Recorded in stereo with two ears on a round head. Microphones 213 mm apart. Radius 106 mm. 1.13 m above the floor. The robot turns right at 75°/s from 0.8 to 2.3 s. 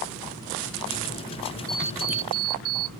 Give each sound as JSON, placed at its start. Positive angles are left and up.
{"t": 1.7, "sound": "an alarm clock", "azimuth_deg": 175}